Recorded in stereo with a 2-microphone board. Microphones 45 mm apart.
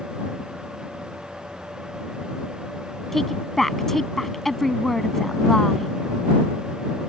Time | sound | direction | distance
3.1 | a woman speaking | 5° left (ahead or behind) | ?